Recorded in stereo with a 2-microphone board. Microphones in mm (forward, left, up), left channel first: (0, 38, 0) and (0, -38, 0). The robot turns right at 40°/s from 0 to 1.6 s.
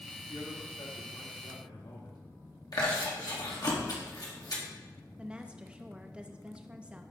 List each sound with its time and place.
0.3 s a man speaking: 50° left, 1.6 m; by 2.2 s 105° left, 1.6 m
2.7 s chewing: 60° left (ahead or behind), 1.7 m
5.2 s a woman speaking: 15° right (ahead or behind), 0.6 m